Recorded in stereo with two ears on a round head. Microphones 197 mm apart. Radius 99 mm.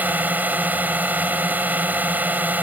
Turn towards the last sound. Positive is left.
turn(degrees=-10)  # may be behind; listen again after turning